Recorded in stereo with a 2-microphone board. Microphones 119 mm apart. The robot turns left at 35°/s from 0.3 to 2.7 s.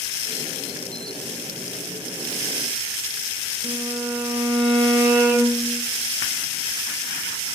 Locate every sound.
3.6 s a violin: 5° right (ahead or behind), 3.5 m